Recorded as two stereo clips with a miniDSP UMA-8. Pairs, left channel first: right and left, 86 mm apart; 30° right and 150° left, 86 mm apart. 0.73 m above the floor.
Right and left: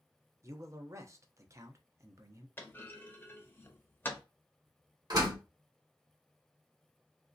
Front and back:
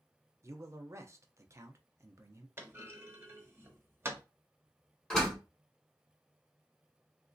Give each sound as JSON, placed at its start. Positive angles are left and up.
{"t": 0.4, "sound": "a man speaking", "azimuth_deg": 120, "distance_m": 0.6}
{"t": 2.6, "sound": "a clunk", "azimuth_deg": -150, "distance_m": 0.7}
{"t": 5.1, "sound": "a door slam", "azimuth_deg": 50, "distance_m": 1.5}